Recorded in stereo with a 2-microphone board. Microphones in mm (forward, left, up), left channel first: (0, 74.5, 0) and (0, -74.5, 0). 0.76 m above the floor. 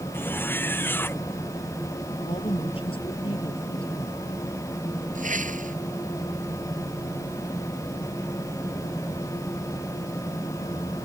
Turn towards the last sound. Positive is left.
turn(degrees=-60)  # may be behind; listen again after turning